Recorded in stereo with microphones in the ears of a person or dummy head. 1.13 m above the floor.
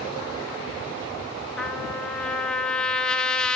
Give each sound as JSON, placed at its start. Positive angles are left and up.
{"t": 1.6, "sound": "a trumpet", "side_deg": 10, "distance_m": 0.9}